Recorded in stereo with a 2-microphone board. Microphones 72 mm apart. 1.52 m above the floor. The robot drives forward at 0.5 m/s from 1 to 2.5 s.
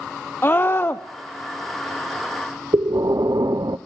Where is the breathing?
60° right (ahead or behind), 0.5 m.